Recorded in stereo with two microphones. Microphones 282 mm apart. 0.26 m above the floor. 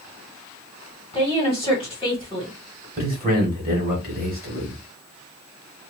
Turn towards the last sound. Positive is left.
turn(degrees=-30)  # may be behind; listen again after turning